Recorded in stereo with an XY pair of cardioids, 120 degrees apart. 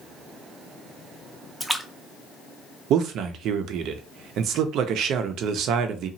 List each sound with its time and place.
1.6 s a splash: 10° right, 0.5 m
2.9 s a man speaking: 70° right, 0.5 m